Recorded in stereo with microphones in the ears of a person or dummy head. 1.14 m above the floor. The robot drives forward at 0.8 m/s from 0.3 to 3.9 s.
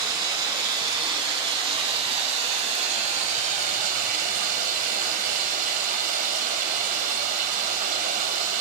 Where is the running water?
25° right (ahead or behind), 5 m; by 8.6 s 45° right (ahead or behind), 3 m.